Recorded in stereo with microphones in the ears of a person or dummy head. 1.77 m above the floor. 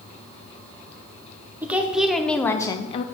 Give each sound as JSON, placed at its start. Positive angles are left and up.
{"t": 1.6, "sound": "a woman speaking", "side_deg": -10, "distance_m": 1.0}